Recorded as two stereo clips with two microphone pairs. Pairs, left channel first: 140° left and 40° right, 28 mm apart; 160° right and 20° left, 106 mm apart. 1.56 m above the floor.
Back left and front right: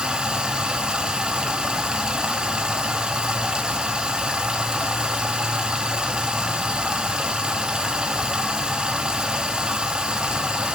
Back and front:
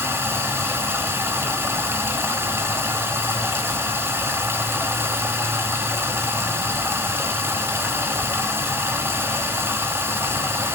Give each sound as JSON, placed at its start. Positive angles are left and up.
{"t": 0.0, "sound": "running water", "azimuth_deg": -25, "distance_m": 1.1}